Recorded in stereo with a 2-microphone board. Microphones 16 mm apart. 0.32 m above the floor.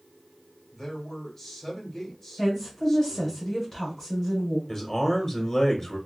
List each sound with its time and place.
0.7 s a man speaking: 15° left (ahead or behind), 1.3 m
2.4 s a woman speaking: 25° left (ahead or behind), 1.6 m
4.7 s a man speaking: 25° left (ahead or behind), 1.0 m